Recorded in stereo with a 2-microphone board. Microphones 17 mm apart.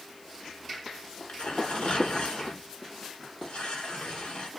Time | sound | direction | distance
1.3 | tearing paper | 90° left | 4.5 m